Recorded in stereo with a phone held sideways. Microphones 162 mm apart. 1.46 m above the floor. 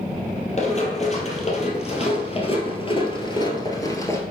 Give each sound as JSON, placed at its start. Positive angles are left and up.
{"t": 0.6, "sound": "running footsteps", "side_deg": 45, "distance_m": 2.5}